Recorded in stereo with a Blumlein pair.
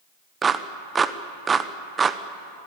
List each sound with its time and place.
0.4 s a clap: 15° right, 0.9 m